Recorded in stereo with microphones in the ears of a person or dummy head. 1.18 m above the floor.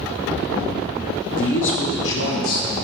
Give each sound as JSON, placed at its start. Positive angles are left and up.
{"t": 1.4, "sound": "a man speaking", "side_deg": 55, "distance_m": 1.0}